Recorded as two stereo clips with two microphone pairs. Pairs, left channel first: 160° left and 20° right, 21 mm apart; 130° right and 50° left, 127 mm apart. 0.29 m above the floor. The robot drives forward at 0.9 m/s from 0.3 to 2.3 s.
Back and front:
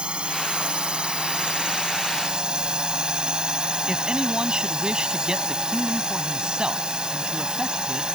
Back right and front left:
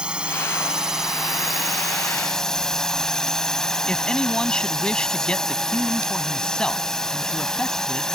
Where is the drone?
35° right; by 8.2 s 45° right.